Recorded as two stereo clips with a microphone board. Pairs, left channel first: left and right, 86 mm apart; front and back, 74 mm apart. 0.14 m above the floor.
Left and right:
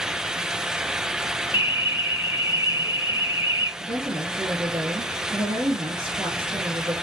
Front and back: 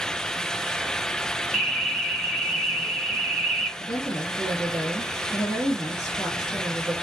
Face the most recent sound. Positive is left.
turn(degrees=-75)